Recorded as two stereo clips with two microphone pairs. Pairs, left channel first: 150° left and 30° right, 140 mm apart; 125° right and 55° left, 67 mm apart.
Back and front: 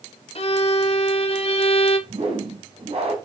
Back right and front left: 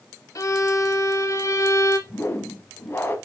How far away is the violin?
About 0.8 m.